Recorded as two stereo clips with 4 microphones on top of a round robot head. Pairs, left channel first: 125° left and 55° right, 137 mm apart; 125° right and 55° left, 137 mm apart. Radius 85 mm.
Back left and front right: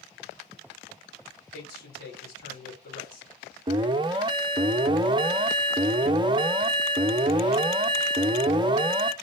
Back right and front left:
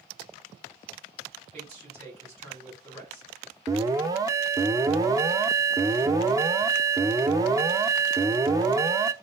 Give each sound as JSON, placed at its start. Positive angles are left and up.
{"t": 1.5, "sound": "a man speaking", "azimuth_deg": 105, "distance_m": 3.5}
{"t": 3.7, "sound": "an alarm", "azimuth_deg": -5, "distance_m": 0.6}